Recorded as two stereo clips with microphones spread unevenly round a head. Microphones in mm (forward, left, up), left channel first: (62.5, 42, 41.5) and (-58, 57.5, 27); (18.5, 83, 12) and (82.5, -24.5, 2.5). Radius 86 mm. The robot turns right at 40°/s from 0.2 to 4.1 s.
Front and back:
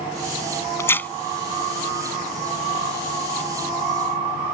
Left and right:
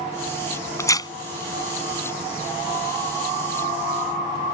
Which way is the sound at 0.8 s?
55° left.